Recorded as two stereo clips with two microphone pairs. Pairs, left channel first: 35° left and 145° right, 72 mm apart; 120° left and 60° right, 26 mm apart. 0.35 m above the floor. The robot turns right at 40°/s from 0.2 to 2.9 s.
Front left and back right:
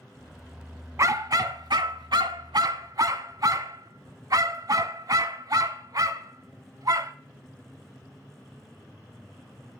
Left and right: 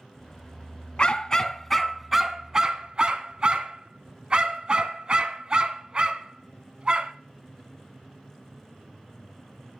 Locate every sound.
1.0 s a dog barking: 175° left, 0.6 m; by 7.1 s 110° right, 0.6 m